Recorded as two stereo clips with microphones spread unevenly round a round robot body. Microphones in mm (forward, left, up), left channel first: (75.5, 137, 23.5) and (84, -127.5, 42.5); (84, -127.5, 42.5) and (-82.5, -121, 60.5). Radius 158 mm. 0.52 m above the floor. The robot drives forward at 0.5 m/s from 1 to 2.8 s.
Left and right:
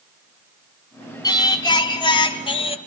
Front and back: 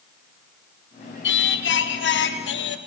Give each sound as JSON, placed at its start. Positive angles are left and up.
{"t": 1.2, "sound": "singing", "azimuth_deg": 15, "distance_m": 2.5}